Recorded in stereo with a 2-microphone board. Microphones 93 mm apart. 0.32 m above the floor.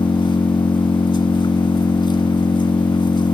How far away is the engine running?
About 0.9 m.